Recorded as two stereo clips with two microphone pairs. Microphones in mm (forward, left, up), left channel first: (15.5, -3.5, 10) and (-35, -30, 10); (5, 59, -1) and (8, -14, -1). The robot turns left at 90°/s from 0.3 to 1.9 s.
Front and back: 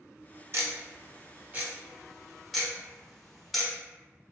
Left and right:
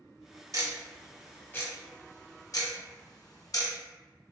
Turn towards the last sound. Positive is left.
turn(degrees=120)